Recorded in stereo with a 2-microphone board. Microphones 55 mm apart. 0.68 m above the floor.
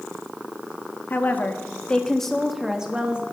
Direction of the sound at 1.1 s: 40° left (ahead or behind).